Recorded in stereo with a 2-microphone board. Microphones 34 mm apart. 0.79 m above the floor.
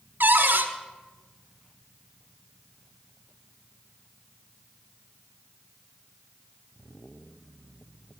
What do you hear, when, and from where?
0.2 s a cupboard door: 70° right (ahead or behind), 1.2 m